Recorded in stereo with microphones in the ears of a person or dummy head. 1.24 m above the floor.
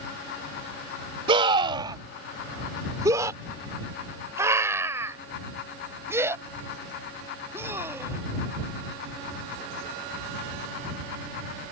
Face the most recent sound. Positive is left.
turn(degrees=-15)  # may be behind; listen again after turning